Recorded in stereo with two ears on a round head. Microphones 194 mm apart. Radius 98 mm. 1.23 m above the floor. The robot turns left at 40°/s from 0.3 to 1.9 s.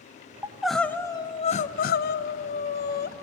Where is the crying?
170° right, 0.7 m; by 3.1 s 130° left, 0.7 m.